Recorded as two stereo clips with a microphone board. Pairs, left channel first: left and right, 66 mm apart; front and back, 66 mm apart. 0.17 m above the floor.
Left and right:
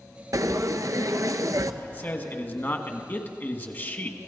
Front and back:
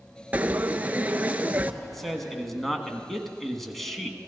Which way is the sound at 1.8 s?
85° left.